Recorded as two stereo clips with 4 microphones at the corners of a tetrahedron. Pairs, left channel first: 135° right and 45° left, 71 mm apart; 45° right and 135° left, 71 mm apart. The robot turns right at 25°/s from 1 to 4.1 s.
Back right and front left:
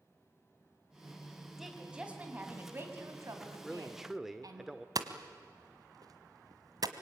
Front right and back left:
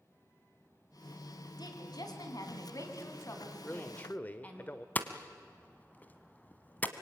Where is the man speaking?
45° right, 1.1 m; by 4.8 s 35° right, 1.1 m.